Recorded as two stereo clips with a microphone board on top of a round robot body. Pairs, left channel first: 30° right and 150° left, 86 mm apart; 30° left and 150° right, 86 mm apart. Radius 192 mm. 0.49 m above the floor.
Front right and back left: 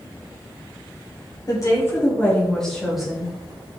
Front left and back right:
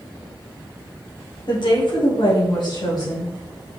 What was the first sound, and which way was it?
A woman speaking, 10° left.